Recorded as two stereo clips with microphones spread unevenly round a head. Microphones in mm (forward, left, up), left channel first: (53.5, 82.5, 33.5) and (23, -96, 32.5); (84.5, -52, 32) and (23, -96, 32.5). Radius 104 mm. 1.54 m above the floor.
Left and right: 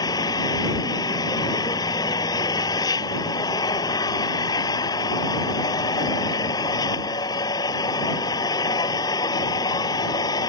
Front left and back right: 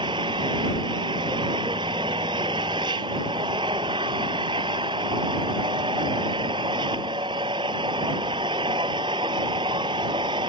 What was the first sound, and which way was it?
An engine running, 155° left.